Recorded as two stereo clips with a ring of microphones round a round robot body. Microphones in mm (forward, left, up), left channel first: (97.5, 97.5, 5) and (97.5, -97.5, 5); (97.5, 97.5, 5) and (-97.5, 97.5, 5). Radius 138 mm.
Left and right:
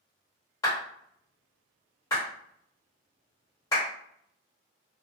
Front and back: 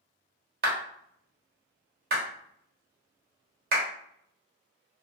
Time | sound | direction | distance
0.6 | a clap | 165° left | 1.1 m